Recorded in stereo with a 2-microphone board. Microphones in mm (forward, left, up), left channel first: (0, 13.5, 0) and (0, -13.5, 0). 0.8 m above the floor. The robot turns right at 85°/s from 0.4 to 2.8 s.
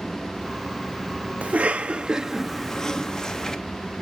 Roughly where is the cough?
Right.